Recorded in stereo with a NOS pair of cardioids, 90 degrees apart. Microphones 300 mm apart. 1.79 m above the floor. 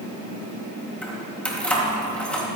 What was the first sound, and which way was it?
Keys jangling, 5° left.